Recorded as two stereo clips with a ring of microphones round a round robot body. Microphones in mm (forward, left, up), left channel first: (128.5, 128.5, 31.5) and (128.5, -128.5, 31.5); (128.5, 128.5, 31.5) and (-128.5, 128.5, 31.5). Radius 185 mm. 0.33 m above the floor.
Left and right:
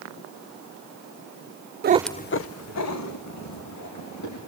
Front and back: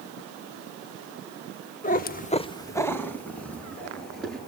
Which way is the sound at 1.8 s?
55° right.